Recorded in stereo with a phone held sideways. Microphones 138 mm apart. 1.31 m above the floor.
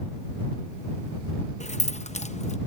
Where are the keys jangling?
55° left (ahead or behind).